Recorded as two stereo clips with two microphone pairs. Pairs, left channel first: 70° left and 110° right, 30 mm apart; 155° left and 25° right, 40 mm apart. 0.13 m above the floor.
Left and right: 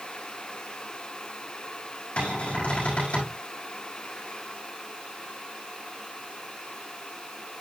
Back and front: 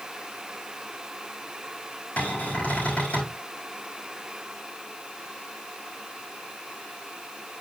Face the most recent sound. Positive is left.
turn(degrees=105)